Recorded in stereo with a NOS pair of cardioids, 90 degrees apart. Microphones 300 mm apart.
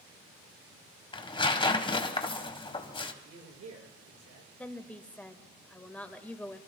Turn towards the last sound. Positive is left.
turn(degrees=5)